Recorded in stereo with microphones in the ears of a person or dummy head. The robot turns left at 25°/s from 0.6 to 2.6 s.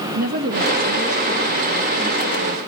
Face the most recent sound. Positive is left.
turn(degrees=170)